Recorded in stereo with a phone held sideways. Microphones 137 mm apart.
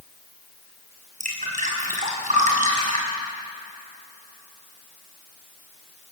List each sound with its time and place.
1.2 s dripping: 65° right (ahead or behind), 6 m